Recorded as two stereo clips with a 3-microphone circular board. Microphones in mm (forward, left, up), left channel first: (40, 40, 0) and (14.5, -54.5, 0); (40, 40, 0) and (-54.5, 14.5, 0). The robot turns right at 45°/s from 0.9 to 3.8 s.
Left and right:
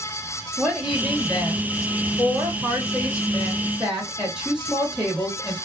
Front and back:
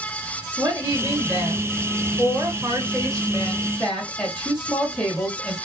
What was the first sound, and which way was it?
A woman speaking, 165° right.